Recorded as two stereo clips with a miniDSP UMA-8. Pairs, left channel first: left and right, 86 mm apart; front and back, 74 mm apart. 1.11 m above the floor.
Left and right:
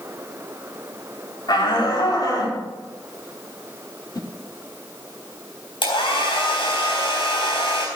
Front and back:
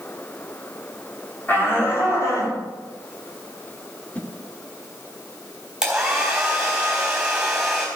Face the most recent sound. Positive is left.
turn(degrees=100)